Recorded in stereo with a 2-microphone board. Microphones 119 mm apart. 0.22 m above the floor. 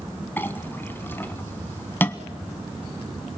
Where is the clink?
15° left (ahead or behind), 1.0 m.